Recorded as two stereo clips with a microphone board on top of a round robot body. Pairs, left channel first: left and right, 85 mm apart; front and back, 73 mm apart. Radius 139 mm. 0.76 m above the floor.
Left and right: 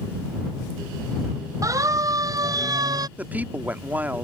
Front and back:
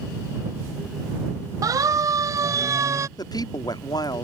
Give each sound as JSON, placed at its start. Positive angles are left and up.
{"t": 1.6, "sound": "a siren", "azimuth_deg": -140}
{"t": 3.2, "sound": "a woman speaking", "azimuth_deg": -20}